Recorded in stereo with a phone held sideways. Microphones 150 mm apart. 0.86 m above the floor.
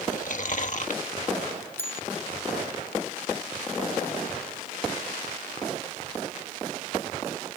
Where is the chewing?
60° left (ahead or behind).